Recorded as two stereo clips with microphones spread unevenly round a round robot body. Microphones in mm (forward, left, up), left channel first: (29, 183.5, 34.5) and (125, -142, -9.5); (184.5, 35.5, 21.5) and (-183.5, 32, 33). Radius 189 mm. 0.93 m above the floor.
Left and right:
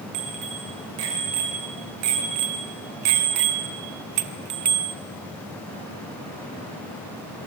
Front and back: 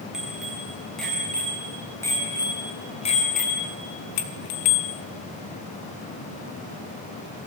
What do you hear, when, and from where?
0.1 s a bicycle bell: 90° right, 6 m; by 5.0 s 15° right, 1.4 m